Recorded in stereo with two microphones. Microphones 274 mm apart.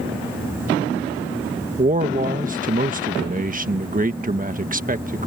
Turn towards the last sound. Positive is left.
turn(degrees=-30)  # may be behind; listen again after turning